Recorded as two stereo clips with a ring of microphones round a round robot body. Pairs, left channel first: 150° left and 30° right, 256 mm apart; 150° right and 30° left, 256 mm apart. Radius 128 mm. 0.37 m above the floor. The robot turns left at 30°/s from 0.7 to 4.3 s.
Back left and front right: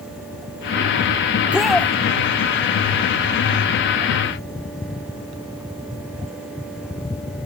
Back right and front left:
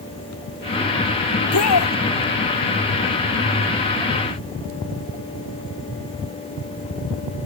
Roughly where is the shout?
Right.